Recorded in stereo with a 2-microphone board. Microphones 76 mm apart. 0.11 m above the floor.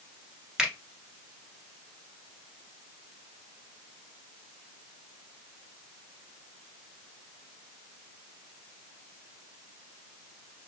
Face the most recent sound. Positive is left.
turn(degrees=-10)  # may be behind; listen again after turning